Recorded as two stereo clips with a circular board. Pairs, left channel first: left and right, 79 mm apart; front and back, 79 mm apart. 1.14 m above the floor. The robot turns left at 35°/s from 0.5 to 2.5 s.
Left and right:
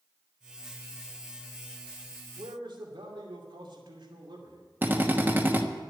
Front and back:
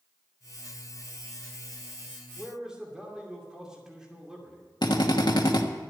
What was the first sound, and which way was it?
A man speaking, 95° right.